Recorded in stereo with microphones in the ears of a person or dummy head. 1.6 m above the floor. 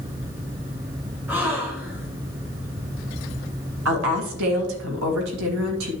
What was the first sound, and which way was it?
A gasp, 10° right (ahead or behind).